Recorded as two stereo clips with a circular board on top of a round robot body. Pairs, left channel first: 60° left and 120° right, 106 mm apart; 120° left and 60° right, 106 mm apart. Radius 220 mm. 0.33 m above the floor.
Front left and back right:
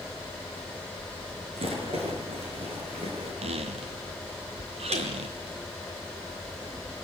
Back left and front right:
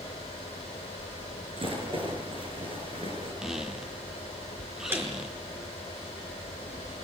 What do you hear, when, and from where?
1.6 s a rattle: 95° right, 8 m
3.4 s a squeak: 145° right, 0.7 m
4.9 s a snare drum: 130° right, 5 m